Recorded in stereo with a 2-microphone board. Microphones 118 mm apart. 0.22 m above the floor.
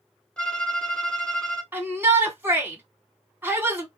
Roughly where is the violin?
Centre.